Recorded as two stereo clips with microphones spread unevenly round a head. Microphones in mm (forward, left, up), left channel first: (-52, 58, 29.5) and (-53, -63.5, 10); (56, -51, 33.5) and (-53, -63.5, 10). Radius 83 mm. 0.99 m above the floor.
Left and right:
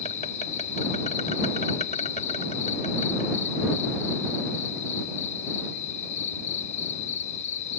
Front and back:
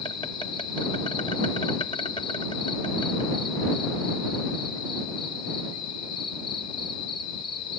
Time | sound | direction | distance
0.0 | an insect | 60° left | ?